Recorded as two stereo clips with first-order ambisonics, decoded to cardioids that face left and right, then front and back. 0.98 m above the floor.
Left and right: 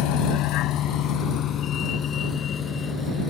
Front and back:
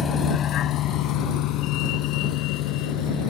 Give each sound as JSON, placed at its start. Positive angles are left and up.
{"t": 0.0, "sound": "a vehicle", "azimuth_deg": 65}